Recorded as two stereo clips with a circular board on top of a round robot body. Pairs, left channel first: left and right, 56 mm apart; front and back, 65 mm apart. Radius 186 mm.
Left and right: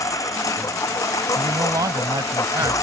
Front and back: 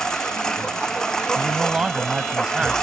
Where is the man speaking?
100° right.